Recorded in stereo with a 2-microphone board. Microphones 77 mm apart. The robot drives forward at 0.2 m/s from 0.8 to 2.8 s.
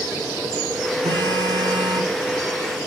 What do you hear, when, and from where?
1.0 s a phone buzzing: 70° right (ahead or behind), 1.2 m